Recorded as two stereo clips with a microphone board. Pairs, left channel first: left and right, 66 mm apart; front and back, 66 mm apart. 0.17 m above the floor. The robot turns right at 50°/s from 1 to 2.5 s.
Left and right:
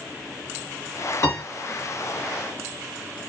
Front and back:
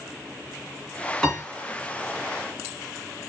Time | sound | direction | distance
1.2 | a piano | 85° left | 2.5 m